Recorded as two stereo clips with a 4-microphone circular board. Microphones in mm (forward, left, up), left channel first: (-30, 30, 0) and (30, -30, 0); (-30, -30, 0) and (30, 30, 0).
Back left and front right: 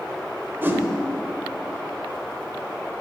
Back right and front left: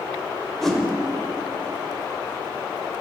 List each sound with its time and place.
0.6 s a whoosh: 55° right, 0.8 m